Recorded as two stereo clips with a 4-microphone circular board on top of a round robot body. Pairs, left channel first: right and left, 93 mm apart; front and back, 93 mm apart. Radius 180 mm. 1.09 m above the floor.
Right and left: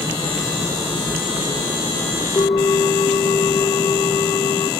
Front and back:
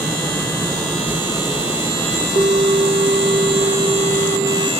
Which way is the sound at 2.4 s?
155° right.